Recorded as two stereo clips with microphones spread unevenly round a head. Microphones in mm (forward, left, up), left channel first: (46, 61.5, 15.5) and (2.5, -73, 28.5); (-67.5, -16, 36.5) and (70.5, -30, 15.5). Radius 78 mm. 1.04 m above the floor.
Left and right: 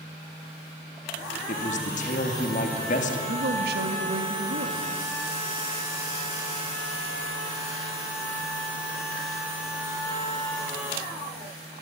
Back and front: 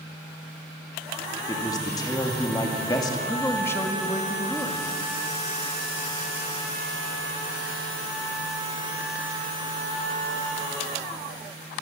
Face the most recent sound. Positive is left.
turn(degrees=-110)